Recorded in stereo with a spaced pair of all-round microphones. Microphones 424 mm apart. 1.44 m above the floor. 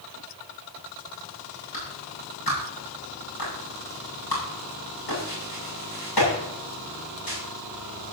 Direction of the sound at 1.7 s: 65° left (ahead or behind).